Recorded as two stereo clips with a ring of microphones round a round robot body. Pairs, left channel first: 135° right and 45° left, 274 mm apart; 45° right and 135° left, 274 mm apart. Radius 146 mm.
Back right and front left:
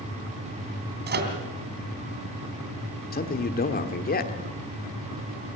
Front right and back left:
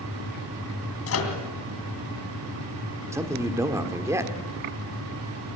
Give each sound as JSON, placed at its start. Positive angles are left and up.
{"t": 1.1, "sound": "a microwave", "azimuth_deg": -10, "distance_m": 2.5}
{"t": 3.1, "sound": "a man speaking", "azimuth_deg": -155, "distance_m": 1.5}